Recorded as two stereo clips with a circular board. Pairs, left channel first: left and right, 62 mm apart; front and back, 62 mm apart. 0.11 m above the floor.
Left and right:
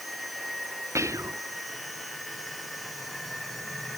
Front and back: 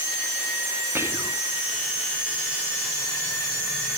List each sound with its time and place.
0.9 s whispering: 130° right